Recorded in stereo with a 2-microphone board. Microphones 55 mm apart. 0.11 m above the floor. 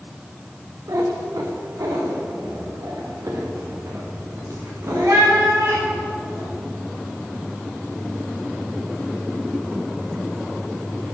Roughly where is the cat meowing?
Right.